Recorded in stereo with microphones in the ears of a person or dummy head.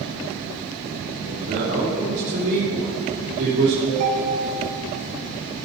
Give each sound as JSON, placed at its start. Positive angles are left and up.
{"t": 1.2, "sound": "a man speaking", "side_deg": -45, "distance_m": 3.5}
{"t": 3.9, "sound": "a ringtone", "side_deg": -70, "distance_m": 2.5}